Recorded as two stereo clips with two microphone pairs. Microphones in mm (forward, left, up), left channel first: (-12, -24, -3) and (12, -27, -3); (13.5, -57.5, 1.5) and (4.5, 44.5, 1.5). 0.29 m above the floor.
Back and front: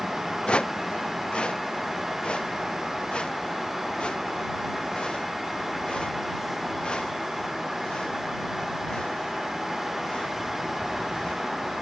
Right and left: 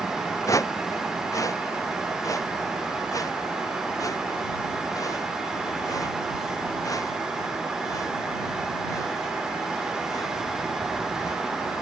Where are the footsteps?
145° right; by 11.4 s 140° right.